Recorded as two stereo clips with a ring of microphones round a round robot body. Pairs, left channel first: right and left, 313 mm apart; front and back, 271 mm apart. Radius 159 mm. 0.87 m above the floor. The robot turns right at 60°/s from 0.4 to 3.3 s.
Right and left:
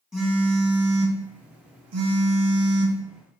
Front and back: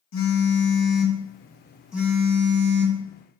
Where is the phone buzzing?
Straight ahead, 1.2 m; by 3.0 s 160° left, 1.2 m.